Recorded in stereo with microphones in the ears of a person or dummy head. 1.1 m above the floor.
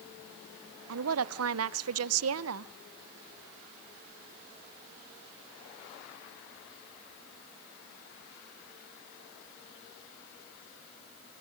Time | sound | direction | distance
0.9 | a woman speaking | 75° right (ahead or behind) | 0.6 m